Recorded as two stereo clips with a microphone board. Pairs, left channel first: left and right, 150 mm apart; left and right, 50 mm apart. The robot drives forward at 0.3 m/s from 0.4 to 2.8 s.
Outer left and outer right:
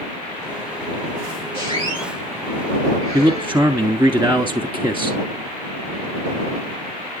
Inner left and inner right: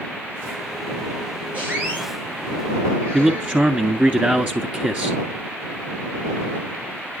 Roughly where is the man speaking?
Centre.